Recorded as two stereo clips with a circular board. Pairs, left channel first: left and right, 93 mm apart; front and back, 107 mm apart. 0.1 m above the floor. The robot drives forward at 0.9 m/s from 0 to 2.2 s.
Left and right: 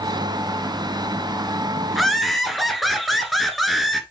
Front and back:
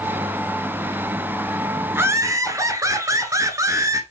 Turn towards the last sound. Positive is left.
turn(degrees=180)